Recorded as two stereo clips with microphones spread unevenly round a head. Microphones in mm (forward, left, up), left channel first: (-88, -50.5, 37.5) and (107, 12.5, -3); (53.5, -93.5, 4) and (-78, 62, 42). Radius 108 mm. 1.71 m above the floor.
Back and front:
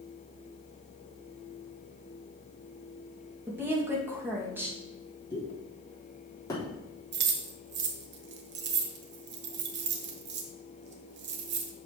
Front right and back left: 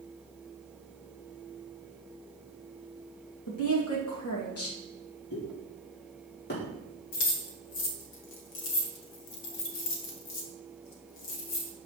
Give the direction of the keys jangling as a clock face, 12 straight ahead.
1 o'clock.